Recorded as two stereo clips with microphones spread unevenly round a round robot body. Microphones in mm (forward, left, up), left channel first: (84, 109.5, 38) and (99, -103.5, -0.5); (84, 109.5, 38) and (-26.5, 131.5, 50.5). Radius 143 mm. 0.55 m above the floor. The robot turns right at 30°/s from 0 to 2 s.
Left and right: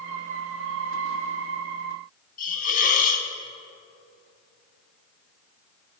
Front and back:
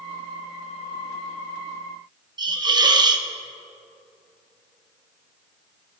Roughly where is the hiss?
Behind left.